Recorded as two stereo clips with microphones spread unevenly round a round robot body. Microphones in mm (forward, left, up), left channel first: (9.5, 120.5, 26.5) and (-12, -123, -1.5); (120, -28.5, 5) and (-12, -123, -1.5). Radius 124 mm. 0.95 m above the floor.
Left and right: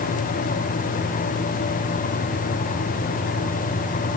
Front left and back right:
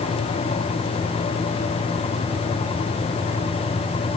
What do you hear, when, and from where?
Only background noise.